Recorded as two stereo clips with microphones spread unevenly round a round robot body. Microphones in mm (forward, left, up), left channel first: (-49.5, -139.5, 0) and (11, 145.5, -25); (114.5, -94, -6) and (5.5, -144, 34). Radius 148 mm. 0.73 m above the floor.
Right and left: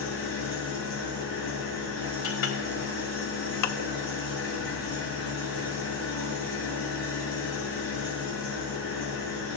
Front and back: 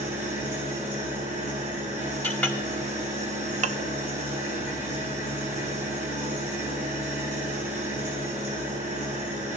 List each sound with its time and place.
0.0 s an engine running: 150° right, 8.5 m
2.2 s a clink: 50° right, 2.5 m
3.6 s dishes clattering: 125° right, 0.6 m